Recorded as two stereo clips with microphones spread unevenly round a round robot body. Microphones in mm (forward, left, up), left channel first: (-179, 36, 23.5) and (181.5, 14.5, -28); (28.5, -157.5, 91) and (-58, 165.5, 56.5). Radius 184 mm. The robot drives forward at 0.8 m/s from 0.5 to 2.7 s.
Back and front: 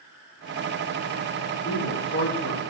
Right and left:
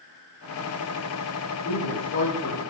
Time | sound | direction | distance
1.6 | a man speaking | 125° right | 7 m